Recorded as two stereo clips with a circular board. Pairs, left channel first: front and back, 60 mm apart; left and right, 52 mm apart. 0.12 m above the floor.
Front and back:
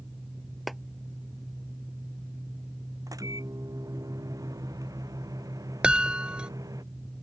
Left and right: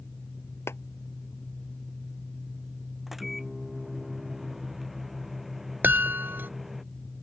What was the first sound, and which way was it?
A clap, 90° left.